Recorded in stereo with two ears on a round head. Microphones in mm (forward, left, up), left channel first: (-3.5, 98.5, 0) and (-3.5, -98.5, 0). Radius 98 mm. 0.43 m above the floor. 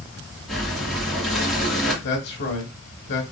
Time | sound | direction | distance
0.5 | breathing | centre (ahead or behind) | 1.8 m
2.0 | a man speaking | 50° left (ahead or behind) | 1.3 m